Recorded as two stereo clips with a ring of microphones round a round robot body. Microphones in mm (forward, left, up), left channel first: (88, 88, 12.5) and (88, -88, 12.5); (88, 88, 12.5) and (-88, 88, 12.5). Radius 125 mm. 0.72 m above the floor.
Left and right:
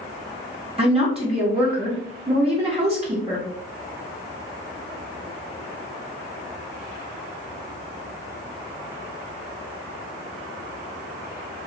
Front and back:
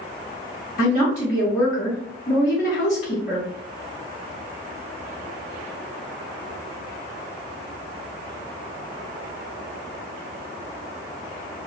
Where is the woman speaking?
40° right, 0.8 m.